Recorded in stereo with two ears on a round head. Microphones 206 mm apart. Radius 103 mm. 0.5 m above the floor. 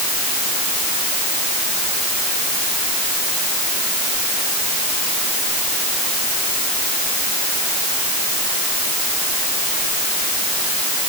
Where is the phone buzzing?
No phone buzzing in this recording.